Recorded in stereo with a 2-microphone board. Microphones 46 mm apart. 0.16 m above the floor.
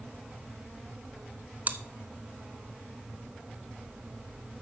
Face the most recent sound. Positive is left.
turn(degrees=-40)  # may be behind; listen again after turning